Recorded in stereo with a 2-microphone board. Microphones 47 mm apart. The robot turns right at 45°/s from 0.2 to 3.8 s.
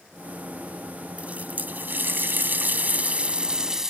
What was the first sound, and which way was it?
A running tap, 135° right.